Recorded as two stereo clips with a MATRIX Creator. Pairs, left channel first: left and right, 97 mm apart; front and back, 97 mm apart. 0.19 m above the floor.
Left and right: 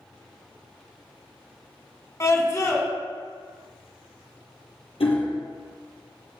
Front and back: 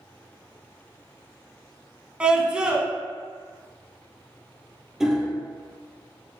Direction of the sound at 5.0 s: 95° left.